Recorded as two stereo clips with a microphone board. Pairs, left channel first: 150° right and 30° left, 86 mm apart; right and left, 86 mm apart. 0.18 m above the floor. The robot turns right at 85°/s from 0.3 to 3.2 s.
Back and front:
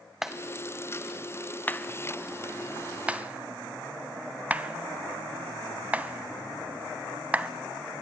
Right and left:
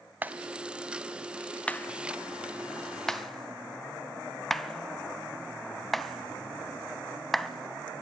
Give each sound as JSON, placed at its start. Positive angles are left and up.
{"t": 0.2, "sound": "a clap", "azimuth_deg": 110, "distance_m": 0.9}